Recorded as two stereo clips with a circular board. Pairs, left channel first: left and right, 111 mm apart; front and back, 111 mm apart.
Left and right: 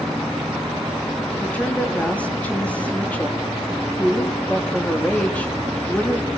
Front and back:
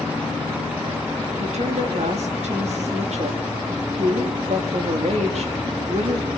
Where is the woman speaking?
170° left, 4 m.